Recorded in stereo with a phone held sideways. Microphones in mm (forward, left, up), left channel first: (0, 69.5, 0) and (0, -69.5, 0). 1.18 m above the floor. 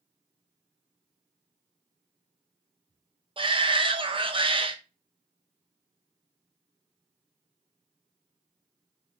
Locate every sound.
3.4 s a shout: 40° right (ahead or behind), 0.6 m